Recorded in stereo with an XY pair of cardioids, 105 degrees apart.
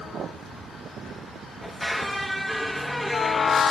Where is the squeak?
15° left, 1.6 m.